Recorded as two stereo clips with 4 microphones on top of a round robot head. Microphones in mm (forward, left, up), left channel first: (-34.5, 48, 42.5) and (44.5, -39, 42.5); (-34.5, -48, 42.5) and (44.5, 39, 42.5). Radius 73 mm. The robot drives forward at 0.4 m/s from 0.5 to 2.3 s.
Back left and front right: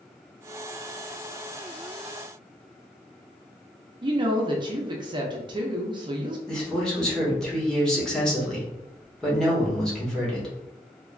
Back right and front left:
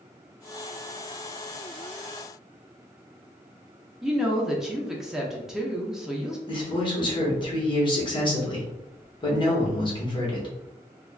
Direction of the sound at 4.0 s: 35° right.